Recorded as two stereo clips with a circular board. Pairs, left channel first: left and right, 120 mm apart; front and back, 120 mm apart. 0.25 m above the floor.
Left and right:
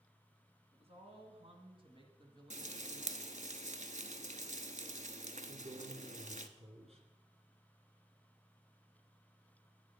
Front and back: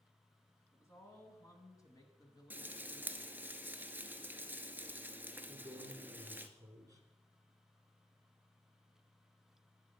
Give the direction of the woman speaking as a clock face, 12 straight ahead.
2 o'clock.